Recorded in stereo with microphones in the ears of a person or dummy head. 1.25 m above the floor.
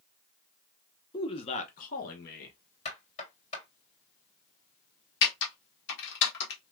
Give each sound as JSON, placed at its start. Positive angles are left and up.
{"t": 1.1, "sound": "a man speaking", "side_deg": 20, "distance_m": 0.7}
{"t": 2.9, "sound": "knocking", "side_deg": 35, "distance_m": 3.0}
{"t": 5.2, "sound": "typing on a keyboard", "side_deg": 60, "distance_m": 1.3}